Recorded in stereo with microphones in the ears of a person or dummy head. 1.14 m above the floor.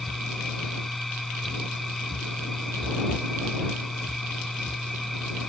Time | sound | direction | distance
0.0 | a machine running | centre (ahead or behind) | ?